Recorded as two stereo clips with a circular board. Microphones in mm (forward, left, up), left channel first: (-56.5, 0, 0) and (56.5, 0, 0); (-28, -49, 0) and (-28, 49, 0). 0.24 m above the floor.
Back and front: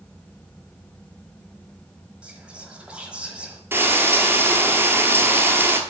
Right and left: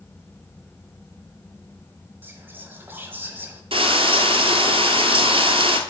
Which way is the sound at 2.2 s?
65° left.